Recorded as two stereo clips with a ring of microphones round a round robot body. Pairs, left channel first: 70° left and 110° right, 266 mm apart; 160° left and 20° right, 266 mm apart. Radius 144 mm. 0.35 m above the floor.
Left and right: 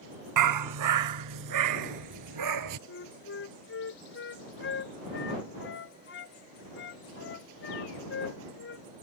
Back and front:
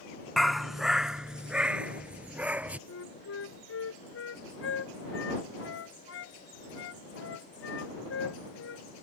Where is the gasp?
No gasp in this recording.